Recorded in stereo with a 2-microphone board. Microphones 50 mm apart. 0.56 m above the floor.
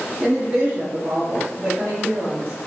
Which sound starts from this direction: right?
A woman speaking, at 0.2 s.